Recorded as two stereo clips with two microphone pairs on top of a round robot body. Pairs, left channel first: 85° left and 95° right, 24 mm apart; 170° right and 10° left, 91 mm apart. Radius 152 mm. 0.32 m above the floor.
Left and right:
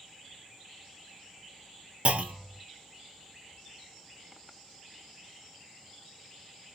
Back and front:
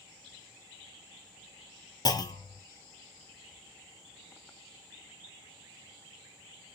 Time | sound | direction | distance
2.0 | a clunk | 120° right | 0.8 m